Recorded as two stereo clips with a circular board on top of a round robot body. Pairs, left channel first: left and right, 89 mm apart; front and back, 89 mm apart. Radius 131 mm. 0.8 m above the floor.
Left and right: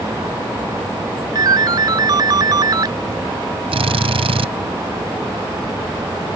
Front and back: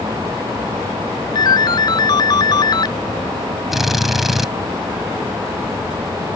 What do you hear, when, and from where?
1.4 s a ringtone: 45° right
3.7 s a drill: 90° right